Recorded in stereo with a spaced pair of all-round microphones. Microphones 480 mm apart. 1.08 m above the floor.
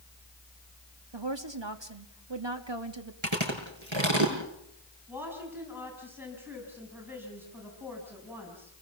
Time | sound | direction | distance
1.1 | a woman speaking | 65° right (ahead or behind) | 2 m
3.2 | chewing | 75° right (ahead or behind) | 5.5 m
5.1 | a woman speaking | 5° right (ahead or behind) | 6.5 m